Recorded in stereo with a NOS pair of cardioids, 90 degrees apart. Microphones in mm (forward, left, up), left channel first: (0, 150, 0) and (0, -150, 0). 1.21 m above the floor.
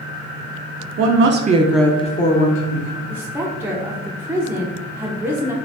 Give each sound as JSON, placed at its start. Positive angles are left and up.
{"t": 1.0, "sound": "a woman speaking", "azimuth_deg": -55, "distance_m": 0.8}
{"t": 3.1, "sound": "a woman speaking", "azimuth_deg": -5, "distance_m": 0.6}